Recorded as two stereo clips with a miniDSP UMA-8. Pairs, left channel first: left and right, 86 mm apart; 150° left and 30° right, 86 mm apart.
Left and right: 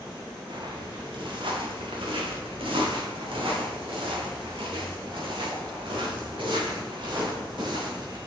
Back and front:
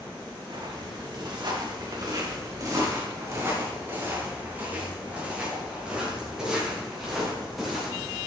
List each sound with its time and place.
0.5 s footsteps: 65° right, 4 m; by 8.2 s 125° right, 5.5 m